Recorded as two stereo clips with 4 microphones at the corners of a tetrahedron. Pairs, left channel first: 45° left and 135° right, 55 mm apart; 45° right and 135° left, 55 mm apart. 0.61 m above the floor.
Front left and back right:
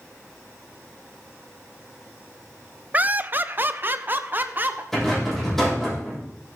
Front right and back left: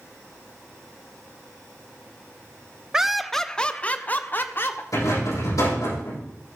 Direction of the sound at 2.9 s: 160° right.